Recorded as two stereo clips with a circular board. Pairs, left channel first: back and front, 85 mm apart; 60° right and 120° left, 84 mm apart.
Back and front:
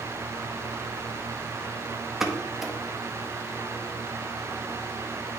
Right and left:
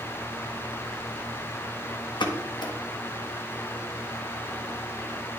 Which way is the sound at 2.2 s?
85° right.